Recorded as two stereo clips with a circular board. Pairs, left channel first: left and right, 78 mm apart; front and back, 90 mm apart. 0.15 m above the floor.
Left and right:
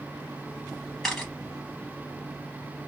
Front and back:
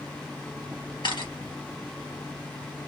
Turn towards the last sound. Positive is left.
turn(degrees=0)